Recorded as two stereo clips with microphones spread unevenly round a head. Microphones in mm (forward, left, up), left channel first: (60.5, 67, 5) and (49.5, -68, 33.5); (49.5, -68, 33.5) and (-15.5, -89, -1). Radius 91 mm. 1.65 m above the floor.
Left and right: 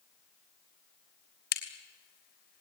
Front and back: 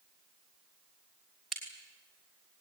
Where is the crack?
95° left, 3 m.